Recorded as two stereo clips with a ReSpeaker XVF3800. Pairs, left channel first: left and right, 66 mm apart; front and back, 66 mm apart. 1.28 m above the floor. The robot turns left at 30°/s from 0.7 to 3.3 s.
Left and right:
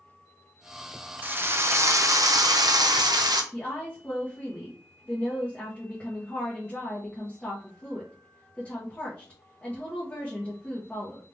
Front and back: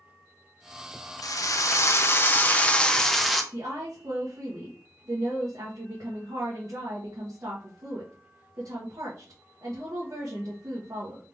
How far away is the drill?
About 0.7 m.